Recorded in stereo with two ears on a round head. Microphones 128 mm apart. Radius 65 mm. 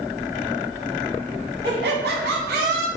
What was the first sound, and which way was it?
Laughter, 85° right.